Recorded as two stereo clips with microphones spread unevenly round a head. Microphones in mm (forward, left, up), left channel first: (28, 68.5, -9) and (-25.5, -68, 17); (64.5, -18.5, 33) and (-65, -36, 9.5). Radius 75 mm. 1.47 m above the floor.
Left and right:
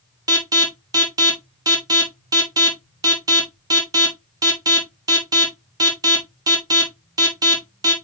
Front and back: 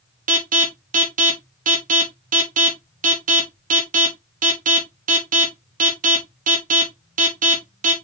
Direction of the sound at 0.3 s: Straight behind.